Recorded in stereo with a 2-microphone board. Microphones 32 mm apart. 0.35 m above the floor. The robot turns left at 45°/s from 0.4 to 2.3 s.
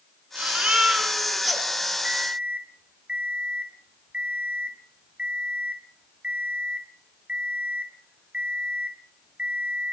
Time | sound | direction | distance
0.3 | a baby crying | 125° right | 3.5 m
2.0 | an alarm clock | 40° right (ahead or behind) | 1.5 m